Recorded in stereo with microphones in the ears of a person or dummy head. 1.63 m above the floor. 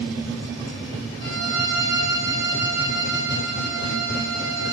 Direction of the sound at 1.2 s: 25° right (ahead or behind).